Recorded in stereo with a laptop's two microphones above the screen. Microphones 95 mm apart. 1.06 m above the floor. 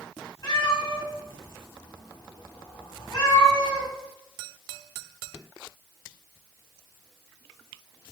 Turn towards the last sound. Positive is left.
turn(degrees=45)  # may be behind; listen again after turning